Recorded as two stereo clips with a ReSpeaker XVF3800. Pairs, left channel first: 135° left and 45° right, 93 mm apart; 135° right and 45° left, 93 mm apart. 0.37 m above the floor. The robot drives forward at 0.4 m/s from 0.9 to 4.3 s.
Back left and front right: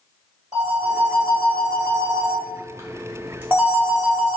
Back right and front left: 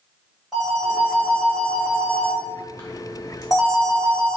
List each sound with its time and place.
0.5 s a phone ringing: 40° right, 1.3 m; by 4.4 s 130° right, 1.2 m